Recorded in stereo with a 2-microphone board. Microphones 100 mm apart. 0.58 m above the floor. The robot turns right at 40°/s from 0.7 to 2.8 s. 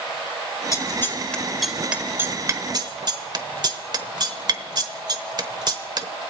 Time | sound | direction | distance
0.7 | scissors | 35° left (ahead or behind) | 0.9 m